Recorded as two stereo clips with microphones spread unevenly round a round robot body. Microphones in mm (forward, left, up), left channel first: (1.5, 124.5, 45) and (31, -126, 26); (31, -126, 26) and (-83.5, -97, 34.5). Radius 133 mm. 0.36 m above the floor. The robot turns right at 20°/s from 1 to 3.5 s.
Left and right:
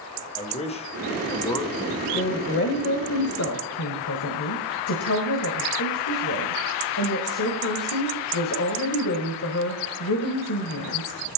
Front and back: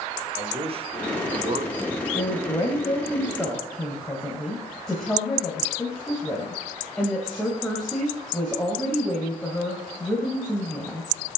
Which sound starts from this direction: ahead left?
A woman speaking, at 2.1 s.